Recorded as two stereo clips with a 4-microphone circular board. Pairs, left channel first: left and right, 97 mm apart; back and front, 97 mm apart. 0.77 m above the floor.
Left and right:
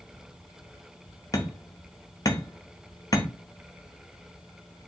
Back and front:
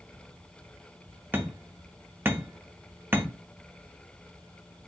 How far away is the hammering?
About 0.6 m.